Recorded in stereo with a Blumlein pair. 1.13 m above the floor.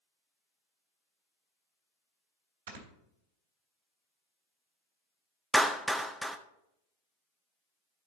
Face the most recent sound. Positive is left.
turn(degrees=-5)